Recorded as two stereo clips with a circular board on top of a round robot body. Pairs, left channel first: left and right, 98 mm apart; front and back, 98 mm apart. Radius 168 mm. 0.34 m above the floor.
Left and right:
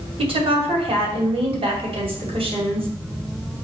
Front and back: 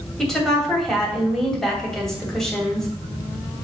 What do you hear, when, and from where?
0.2 s a woman speaking: 85° right, 3 m